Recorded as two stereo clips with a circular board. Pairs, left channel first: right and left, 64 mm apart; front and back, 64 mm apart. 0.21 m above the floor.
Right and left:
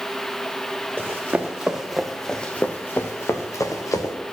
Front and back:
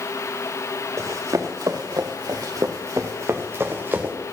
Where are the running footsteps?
150° left, 2 m; by 4.2 s 115° right, 2.5 m.